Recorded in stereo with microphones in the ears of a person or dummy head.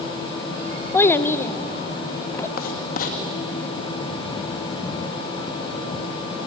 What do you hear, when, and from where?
0.9 s a child speaking: 15° left (ahead or behind), 0.7 m
2.6 s writing: 50° left (ahead or behind), 1.9 m